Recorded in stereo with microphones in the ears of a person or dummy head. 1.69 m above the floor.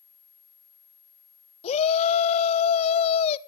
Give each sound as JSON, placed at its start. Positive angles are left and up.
{"t": 1.6, "sound": "a shout", "side_deg": 35, "distance_m": 1.0}